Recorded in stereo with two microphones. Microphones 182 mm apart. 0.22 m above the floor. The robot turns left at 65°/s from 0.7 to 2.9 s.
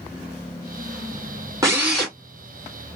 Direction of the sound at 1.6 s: 160° right.